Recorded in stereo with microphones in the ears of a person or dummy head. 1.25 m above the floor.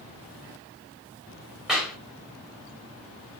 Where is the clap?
5° right (ahead or behind), 4.5 m.